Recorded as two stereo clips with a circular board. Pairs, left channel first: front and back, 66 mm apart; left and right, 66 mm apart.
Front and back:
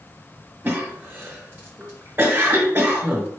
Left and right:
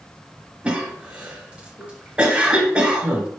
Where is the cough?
145° right, 0.9 m.